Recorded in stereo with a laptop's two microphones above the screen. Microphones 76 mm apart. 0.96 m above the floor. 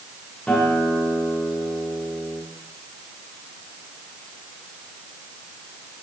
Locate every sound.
0.5 s a guitar: 10° left (ahead or behind), 3 m